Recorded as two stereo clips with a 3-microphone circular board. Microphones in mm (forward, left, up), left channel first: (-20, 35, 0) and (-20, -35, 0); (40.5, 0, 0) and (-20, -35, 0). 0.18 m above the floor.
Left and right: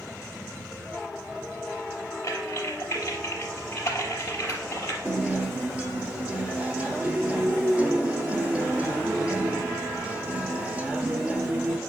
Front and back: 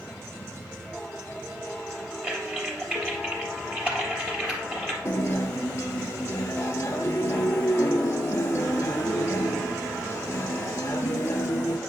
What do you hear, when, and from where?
2.2 s typing on a keyboard: 140° left, 3 m
5.0 s a guitar: 15° right, 1.0 m